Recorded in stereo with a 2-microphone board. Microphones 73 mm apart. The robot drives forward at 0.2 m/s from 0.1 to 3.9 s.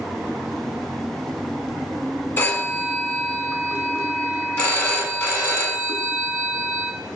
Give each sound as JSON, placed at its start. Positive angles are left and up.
{"t": 2.4, "sound": "a phone ringing", "side_deg": 25, "distance_m": 0.7}